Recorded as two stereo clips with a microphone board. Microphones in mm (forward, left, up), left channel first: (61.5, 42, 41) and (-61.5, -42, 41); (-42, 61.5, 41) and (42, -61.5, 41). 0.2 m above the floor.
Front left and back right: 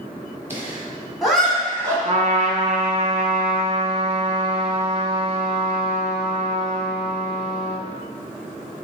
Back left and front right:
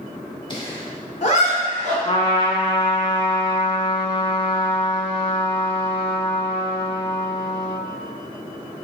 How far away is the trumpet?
About 0.6 m.